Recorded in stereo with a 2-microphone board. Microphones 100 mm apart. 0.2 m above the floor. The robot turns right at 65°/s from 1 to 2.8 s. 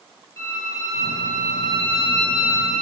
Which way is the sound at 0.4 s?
30° left.